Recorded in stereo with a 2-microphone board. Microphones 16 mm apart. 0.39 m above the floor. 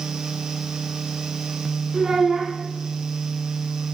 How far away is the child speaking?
About 2.5 m.